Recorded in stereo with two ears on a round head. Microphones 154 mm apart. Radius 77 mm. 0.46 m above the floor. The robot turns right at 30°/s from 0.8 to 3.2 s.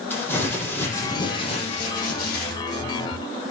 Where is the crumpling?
10° left, 7 m; by 2.6 s 65° left, 7 m.